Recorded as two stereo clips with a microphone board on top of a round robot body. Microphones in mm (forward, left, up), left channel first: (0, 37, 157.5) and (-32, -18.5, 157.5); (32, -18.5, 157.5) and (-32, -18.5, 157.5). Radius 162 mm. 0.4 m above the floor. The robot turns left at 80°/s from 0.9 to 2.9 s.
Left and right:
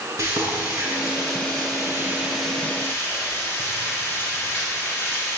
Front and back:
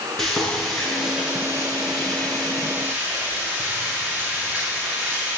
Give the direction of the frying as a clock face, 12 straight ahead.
3 o'clock.